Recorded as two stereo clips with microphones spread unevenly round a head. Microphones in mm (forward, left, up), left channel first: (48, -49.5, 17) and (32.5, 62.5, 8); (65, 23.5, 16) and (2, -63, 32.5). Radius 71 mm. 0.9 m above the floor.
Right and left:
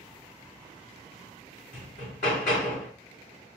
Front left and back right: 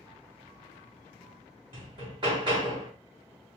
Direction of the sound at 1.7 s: 85° right.